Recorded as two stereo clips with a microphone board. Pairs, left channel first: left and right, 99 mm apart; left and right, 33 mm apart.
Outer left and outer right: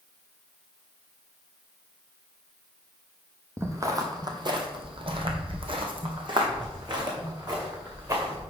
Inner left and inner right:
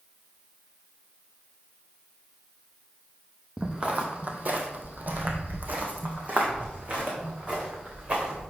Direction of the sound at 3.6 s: 30° right (ahead or behind).